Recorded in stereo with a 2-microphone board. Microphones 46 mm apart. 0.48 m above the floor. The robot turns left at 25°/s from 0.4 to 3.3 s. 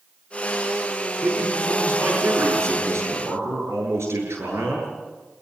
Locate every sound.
1.2 s a man speaking: 45° right, 9 m; by 4.9 s 100° right, 9 m